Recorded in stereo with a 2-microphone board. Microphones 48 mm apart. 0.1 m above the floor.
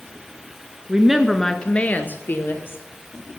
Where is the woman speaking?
20° right (ahead or behind), 1.2 m; by 2.8 s 55° left (ahead or behind), 2.5 m.